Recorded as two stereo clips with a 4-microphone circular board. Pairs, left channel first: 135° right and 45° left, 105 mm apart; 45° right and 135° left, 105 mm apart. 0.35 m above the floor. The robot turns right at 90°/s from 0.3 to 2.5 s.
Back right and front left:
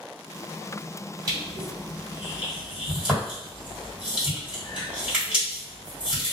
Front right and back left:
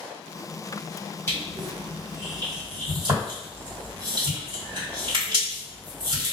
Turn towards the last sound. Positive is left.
turn(degrees=120)